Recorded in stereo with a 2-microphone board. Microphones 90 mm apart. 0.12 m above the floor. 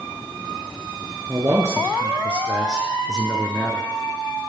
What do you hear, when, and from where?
1.3 s a man speaking: 35° right (ahead or behind), 2 m; by 3.9 s 10° left (ahead or behind), 2 m